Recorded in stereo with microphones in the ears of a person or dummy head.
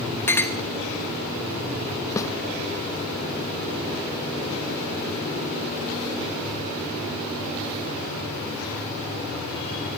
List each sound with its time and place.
0.3 s a clink: 15° left (ahead or behind), 1.1 m
2.2 s a snare drum: 20° left (ahead or behind), 0.6 m